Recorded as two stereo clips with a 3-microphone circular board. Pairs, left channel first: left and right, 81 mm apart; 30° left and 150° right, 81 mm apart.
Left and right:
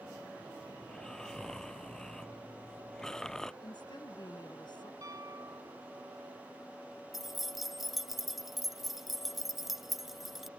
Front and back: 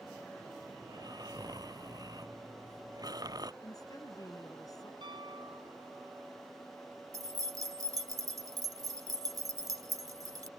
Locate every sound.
0.8 s snoring: 175° left
3.6 s a woman speaking: 70° left
5.0 s a piano: 135° right
7.1 s keys jangling: 175° right